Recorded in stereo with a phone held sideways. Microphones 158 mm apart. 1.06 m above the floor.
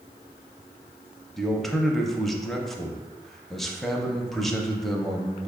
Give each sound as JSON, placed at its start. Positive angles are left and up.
{"t": 1.4, "sound": "a man speaking", "side_deg": 0, "distance_m": 0.6}